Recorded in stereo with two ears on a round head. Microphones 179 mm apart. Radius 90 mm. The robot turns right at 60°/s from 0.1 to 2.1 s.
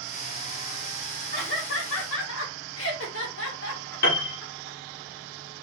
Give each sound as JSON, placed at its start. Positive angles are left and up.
{"t": 1.3, "sound": "laughter", "side_deg": 45, "distance_m": 1.3}
{"t": 4.0, "sound": "a piano", "side_deg": 50, "distance_m": 1.6}